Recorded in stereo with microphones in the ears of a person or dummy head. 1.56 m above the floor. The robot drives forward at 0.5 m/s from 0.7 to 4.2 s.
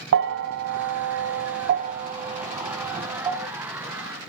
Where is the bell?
65° right (ahead or behind), 0.5 m; by 3.5 s 20° right (ahead or behind), 1.3 m.